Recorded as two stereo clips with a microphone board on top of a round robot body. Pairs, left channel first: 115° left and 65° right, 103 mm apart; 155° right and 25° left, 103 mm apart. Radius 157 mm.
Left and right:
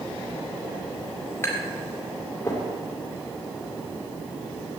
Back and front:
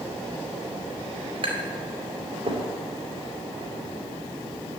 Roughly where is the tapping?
Ahead left.